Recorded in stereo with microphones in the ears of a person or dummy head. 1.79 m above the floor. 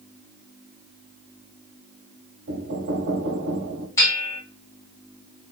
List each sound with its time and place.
2.5 s knocking: 65° right (ahead or behind), 1.2 m
4.0 s a bell: 20° left (ahead or behind), 1.5 m